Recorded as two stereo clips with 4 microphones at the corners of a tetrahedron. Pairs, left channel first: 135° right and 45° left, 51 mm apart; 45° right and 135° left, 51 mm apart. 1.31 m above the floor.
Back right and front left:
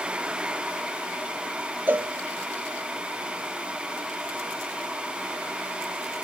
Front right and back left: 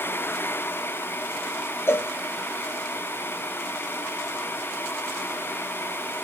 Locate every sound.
1.9 s a cowbell: 10° right, 0.6 m